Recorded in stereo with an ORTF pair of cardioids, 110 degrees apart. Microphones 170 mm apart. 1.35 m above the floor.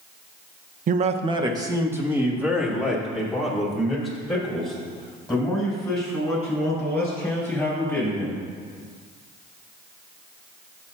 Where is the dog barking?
I don't hear a dog barking.